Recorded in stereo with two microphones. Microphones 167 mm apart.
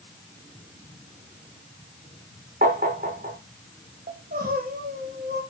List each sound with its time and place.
2.6 s tapping: 60° right (ahead or behind), 7 m
4.1 s crying: 65° right (ahead or behind), 5 m